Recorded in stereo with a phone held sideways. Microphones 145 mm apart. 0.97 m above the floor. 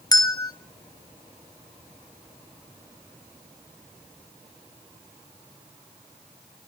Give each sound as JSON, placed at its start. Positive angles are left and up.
{"t": 0.1, "sound": "a bell", "side_deg": 25, "distance_m": 1.0}